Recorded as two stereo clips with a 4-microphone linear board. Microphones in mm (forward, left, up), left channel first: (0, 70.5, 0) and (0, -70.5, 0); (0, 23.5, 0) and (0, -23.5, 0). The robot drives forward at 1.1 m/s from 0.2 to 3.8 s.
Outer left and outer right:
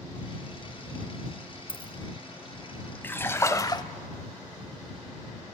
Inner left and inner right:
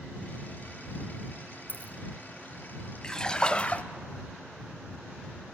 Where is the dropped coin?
40° left (ahead or behind), 1.4 m; by 1.9 s 35° left (ahead or behind), 1.7 m.